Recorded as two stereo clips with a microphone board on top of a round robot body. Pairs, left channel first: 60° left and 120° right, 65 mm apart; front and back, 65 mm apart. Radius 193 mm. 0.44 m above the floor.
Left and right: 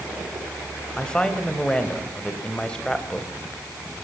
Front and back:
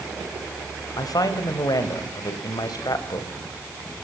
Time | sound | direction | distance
1.0 | a woman speaking | 20° right | 3 m